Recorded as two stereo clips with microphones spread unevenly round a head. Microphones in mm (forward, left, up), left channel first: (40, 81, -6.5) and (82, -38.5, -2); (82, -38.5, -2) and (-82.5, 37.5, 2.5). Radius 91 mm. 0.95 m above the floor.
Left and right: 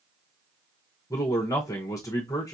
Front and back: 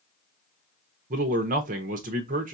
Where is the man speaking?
160° left, 0.7 m.